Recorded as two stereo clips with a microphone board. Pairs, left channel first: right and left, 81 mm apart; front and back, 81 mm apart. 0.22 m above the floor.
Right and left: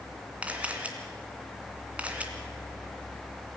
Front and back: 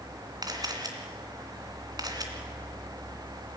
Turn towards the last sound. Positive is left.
turn(degrees=160)